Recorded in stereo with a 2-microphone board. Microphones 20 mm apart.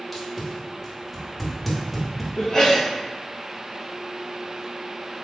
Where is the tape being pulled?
Centre (ahead or behind), 1.0 m.